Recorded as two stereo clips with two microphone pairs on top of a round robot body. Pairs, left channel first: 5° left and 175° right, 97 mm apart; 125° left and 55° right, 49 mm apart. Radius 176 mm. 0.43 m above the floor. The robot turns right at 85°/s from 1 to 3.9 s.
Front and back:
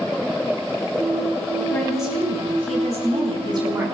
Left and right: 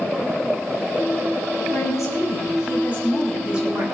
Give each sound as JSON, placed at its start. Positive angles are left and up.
{"t": 1.7, "sound": "a woman speaking", "azimuth_deg": 75, "distance_m": 5.5}